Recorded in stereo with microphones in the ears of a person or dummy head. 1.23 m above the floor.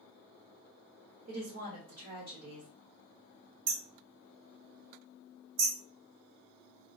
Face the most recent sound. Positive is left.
turn(degrees=-70)  # may be behind; listen again after turning